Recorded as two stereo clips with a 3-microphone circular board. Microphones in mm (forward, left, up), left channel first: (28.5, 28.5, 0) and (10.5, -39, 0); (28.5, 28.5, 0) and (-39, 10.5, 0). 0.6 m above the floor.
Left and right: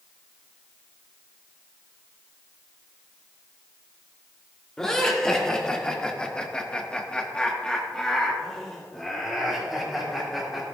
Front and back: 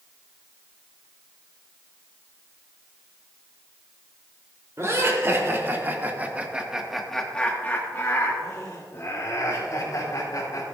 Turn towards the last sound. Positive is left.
turn(degrees=-15)